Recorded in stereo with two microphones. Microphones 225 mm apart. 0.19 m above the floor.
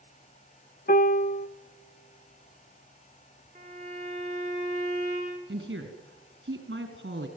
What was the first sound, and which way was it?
A piano, 40° left (ahead or behind).